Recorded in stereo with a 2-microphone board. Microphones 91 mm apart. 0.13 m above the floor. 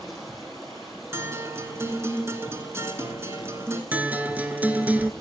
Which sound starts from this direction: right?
A guitar, at 1.1 s.